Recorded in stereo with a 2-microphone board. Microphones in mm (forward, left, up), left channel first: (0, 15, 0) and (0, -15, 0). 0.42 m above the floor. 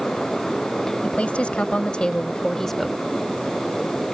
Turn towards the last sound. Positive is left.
turn(degrees=0)  # may be behind; listen again after turning